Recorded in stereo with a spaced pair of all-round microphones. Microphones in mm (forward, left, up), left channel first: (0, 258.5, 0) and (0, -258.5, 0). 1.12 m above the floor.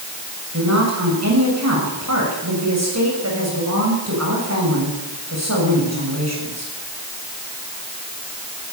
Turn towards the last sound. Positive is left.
turn(degrees=-30)  # may be behind; listen again after turning